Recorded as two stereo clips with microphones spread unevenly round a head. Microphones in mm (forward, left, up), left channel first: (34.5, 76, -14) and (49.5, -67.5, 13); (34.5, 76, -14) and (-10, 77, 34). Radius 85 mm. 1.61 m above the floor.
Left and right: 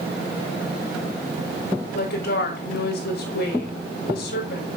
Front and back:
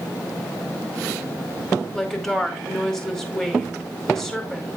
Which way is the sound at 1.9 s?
85° left.